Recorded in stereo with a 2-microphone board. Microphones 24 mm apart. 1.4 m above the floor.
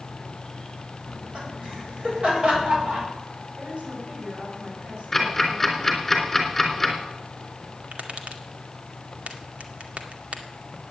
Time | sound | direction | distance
1.1 | laughter | 50° right (ahead or behind) | 8.5 m
3.6 | a woman speaking | 60° right (ahead or behind) | 7.5 m
5.1 | ticking | 5° left (ahead or behind) | 3.5 m
7.9 | tapping | 70° right (ahead or behind) | 2 m